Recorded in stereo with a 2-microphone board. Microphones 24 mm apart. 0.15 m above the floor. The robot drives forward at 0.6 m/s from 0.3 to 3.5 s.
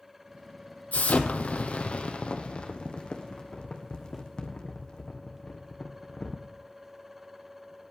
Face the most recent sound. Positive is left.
turn(degrees=30)  # may be behind; listen again after turning